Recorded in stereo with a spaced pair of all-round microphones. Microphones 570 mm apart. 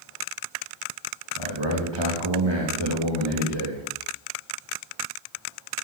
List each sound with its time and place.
1.4 s a man speaking: 45° right (ahead or behind), 2 m